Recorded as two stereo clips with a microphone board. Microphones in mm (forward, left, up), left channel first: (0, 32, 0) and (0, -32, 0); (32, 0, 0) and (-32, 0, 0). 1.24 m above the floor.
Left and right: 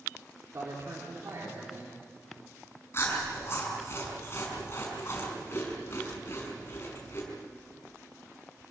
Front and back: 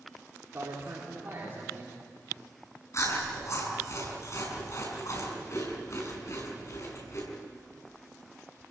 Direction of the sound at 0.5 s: 125° right.